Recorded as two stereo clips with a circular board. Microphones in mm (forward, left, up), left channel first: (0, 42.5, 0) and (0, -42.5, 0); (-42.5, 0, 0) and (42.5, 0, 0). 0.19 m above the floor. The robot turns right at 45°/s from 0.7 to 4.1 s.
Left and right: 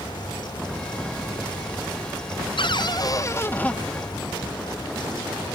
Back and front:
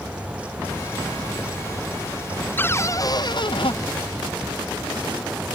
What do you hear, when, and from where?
2.6 s a cupboard door: 110° left; by 3.8 s 165° left